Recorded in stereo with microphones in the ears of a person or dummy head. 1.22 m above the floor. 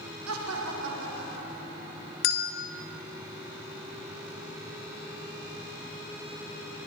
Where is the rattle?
No rattle in this recording.